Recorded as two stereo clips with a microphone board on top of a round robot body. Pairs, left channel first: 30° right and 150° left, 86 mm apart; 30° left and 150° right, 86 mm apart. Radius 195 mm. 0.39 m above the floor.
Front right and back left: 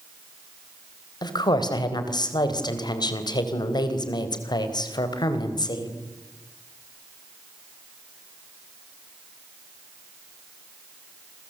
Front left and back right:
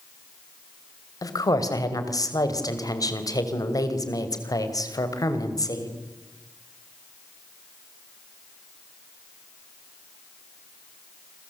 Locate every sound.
1.2 s a woman speaking: 10° right, 3.5 m